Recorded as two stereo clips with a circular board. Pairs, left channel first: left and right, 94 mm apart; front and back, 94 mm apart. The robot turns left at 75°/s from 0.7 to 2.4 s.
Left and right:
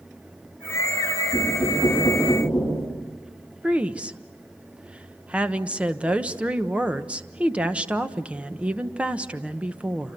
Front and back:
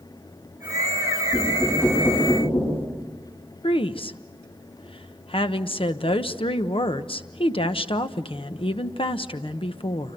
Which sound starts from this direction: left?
Knocking, at 1.3 s.